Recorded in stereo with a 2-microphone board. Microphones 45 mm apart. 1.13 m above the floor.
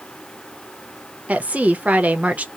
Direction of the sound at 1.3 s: 30° right (ahead or behind).